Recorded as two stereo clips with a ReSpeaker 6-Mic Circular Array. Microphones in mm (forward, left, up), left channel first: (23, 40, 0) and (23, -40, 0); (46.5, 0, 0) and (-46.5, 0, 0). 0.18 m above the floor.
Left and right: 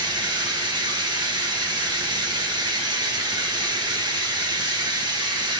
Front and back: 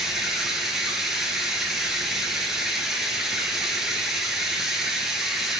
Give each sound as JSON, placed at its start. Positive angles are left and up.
{"t": 0.0, "sound": "running water", "azimuth_deg": -95, "distance_m": 1.1}